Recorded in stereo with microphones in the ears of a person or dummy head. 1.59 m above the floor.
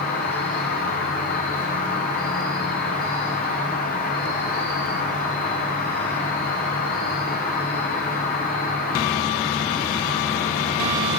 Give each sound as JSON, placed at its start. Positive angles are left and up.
{"t": 0.0, "sound": "an insect", "side_deg": 40, "distance_m": 0.8}